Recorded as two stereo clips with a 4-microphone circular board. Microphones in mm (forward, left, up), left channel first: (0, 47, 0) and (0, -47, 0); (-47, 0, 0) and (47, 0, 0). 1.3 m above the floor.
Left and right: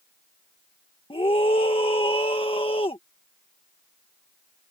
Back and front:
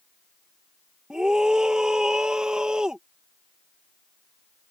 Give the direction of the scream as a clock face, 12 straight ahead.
9 o'clock.